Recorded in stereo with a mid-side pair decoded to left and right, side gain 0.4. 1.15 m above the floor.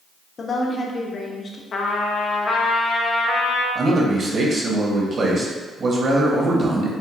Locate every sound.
0.4 s a woman speaking: 45° left, 1.0 m
1.7 s a trumpet: 60° left, 0.7 m
3.8 s a man speaking: 50° right, 1.3 m